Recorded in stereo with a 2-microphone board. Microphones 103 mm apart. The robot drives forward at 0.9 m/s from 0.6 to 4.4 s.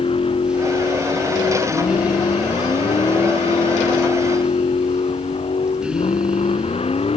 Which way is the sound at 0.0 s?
65° left (ahead or behind).